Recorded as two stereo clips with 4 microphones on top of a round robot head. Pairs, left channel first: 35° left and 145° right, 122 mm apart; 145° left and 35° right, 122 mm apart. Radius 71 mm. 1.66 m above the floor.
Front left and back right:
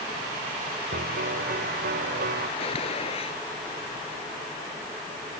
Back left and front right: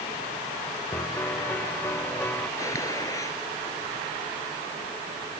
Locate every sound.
0.9 s a piano: 140° right
2.6 s a gunshot: 80° left